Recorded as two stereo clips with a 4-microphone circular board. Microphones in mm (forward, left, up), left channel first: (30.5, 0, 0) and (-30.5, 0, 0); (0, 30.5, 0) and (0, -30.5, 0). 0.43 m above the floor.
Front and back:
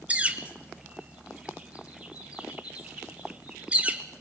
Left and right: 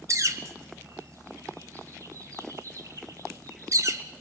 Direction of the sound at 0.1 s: 115° right.